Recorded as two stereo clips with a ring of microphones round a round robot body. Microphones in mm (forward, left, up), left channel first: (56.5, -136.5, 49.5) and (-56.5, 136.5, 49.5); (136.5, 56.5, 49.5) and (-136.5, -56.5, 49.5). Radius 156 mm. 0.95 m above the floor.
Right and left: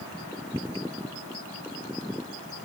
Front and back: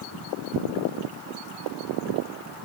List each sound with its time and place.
Only background noise.